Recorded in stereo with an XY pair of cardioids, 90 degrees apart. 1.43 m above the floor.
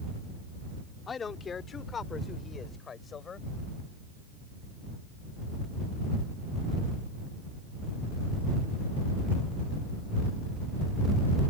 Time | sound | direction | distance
1.1 | a man speaking | 45° left | ?